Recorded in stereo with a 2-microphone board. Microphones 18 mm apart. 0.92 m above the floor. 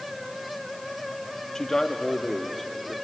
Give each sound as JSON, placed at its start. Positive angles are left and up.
{"t": 1.6, "sound": "a man speaking", "side_deg": 35, "distance_m": 1.6}